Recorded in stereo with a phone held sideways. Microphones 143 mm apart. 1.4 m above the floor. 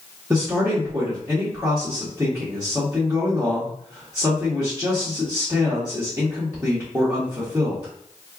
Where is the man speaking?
10° right (ahead or behind), 1.2 m.